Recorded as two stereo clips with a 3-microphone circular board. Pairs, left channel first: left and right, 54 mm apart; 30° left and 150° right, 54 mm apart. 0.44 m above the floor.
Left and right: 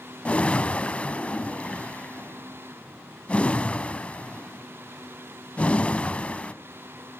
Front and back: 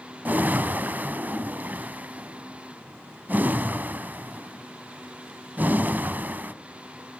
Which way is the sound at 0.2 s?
155° left.